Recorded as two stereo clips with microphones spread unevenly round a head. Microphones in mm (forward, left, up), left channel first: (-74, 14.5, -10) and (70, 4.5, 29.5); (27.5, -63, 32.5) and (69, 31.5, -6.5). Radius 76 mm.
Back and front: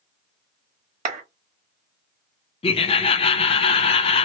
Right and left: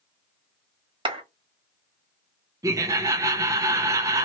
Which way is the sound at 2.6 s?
130° left.